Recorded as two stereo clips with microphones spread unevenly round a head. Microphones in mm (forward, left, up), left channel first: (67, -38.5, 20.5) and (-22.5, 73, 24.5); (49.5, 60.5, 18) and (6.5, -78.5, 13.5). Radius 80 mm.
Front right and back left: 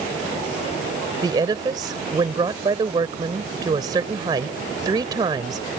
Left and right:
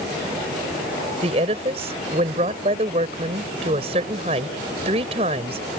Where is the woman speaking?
165° right.